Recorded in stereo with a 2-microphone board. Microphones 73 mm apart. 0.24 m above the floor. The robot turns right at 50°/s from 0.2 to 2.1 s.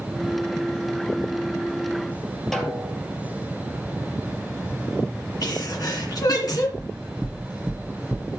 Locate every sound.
2.5 s a snare drum: 5° left (ahead or behind), 3.5 m
5.4 s a sneeze: 60° left (ahead or behind), 3 m
6.8 s knocking: 15° right (ahead or behind), 2.5 m